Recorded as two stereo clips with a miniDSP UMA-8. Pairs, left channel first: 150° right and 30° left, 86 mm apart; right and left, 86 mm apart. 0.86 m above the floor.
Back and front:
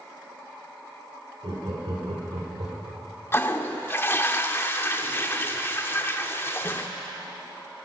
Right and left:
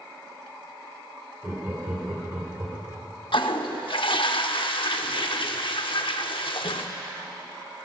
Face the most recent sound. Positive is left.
turn(degrees=-90)